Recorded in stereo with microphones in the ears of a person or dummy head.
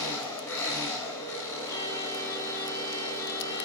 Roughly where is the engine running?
Centre.